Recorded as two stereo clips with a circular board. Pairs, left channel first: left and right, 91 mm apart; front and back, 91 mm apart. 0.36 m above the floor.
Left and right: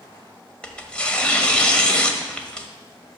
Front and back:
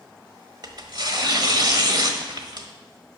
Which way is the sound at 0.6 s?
165° left.